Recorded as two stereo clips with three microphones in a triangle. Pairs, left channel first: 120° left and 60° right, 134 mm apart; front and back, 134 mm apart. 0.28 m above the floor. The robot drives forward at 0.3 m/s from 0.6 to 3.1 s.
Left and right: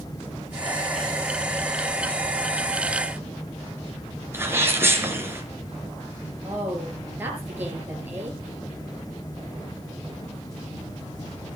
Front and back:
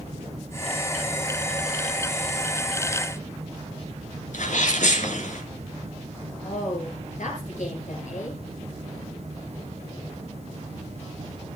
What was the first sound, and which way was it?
A sneeze, 10° left.